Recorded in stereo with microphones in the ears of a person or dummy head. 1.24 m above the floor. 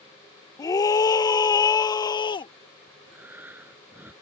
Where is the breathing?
5° right (ahead or behind).